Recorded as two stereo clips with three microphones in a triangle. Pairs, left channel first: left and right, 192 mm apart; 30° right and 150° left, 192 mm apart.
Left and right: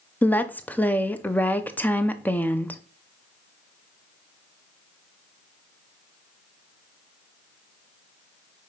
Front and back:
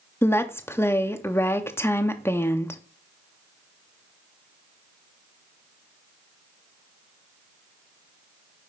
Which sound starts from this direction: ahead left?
A woman speaking, at 0.2 s.